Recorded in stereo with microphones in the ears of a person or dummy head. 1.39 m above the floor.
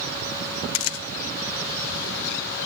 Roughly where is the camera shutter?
Left.